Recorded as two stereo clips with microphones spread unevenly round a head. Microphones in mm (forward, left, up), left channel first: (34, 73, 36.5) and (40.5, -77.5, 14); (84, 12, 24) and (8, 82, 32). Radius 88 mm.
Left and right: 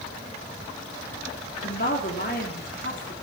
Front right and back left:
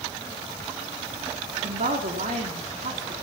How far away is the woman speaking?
About 3.5 m.